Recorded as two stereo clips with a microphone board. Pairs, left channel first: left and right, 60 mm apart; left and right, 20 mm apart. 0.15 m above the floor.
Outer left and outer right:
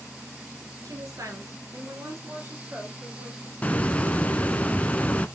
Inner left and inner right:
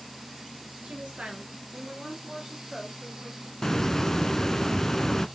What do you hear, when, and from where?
0.8 s a woman speaking: 65° right (ahead or behind), 2.5 m; by 3.5 s 25° right (ahead or behind), 3 m
3.6 s a hiss: 20° left (ahead or behind), 0.8 m